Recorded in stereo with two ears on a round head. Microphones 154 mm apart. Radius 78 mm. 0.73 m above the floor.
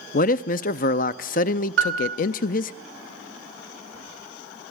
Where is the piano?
70° right (ahead or behind), 2.5 m.